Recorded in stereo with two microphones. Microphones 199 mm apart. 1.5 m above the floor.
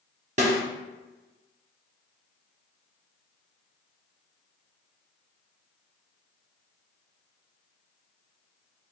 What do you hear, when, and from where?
0.4 s a snare drum: 35° right (ahead or behind), 1.0 m